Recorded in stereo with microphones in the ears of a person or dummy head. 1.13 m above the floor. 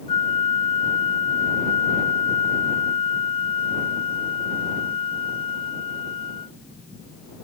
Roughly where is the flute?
Left.